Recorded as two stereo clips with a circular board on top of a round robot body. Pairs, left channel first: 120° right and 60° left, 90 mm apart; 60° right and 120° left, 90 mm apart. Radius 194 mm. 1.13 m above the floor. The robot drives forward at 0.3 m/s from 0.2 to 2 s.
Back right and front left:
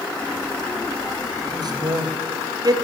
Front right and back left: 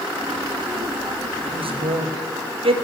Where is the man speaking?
100° left, 1.6 m; by 2.8 s 110° left, 1.7 m.